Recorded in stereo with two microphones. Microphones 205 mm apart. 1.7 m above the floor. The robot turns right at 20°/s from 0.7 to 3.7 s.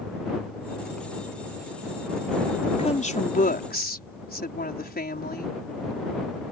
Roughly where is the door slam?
No door slam in this recording.